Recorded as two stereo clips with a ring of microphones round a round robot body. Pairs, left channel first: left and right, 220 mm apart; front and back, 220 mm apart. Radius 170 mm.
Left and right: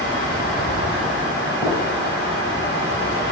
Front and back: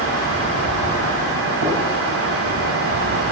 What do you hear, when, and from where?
1.6 s a gunshot: 170° right, 2.5 m